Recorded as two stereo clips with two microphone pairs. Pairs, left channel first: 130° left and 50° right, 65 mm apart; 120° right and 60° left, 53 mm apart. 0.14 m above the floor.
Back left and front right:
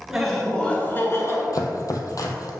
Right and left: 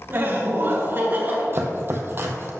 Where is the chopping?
105° left, 0.9 m.